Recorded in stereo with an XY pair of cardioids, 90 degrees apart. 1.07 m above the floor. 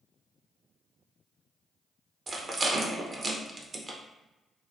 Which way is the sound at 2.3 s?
45° right.